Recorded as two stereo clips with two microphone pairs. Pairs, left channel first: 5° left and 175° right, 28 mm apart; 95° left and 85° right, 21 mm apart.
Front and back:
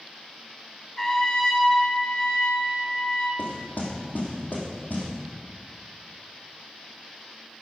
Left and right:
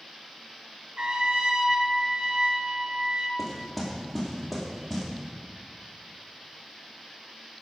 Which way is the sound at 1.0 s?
65° right.